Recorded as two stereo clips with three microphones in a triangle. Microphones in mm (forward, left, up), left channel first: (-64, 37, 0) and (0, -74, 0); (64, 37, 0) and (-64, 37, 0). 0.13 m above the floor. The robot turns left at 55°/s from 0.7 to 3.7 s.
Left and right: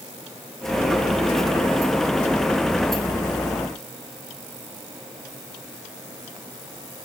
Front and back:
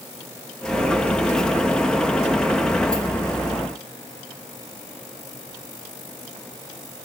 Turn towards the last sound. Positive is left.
No sound to turn to.